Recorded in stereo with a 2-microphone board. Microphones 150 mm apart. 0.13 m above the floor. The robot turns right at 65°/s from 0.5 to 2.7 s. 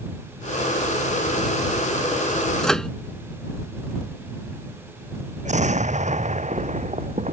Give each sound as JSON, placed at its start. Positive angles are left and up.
{"t": 2.6, "sound": "a microwave", "side_deg": 5}
{"t": 5.5, "sound": "an explosion", "side_deg": -50}